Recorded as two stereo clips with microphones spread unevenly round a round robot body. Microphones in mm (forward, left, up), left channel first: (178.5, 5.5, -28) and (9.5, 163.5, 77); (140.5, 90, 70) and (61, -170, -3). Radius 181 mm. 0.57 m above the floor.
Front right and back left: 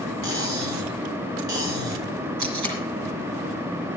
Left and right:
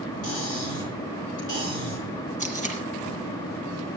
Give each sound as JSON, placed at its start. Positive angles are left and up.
{"t": 0.2, "sound": "cutlery clinking", "azimuth_deg": 145, "distance_m": 5.5}
{"t": 2.4, "sound": "tape being pulled", "azimuth_deg": 170, "distance_m": 4.5}